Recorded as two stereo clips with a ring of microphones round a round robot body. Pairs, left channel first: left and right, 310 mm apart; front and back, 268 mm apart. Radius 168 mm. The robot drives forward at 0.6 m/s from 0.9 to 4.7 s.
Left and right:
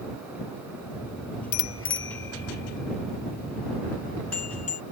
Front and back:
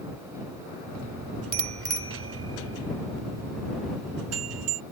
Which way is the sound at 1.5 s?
140° left.